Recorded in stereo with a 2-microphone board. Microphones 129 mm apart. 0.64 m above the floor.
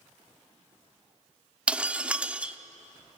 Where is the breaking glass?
10° right (ahead or behind), 0.8 m.